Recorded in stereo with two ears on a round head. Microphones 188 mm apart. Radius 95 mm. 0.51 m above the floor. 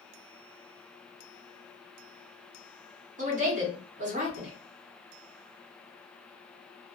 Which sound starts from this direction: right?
A woman speaking, at 3.2 s.